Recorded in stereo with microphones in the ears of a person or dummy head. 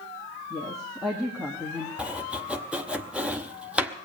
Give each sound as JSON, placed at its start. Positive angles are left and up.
{"t": 0.5, "sound": "a woman speaking", "side_deg": 0, "distance_m": 1.7}
{"t": 2.0, "sound": "chopping", "side_deg": -5, "distance_m": 0.8}